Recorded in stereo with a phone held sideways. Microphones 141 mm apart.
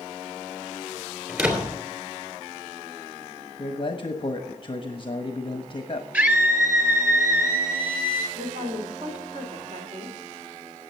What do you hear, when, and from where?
1.3 s a door slam: 10° right (ahead or behind), 3 m
3.6 s a man speaking: 35° left (ahead or behind), 1.2 m
6.1 s a scream: 15° right (ahead or behind), 3.5 m
8.3 s a woman speaking: 55° right (ahead or behind), 3.5 m